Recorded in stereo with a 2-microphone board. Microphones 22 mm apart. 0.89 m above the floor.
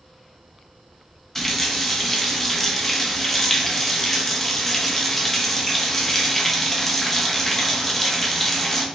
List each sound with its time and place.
1.4 s a running tap: 15° left (ahead or behind), 0.8 m